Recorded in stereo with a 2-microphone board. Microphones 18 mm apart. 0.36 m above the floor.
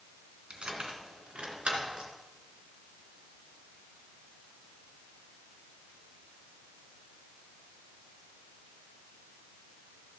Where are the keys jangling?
75° right (ahead or behind), 2 m.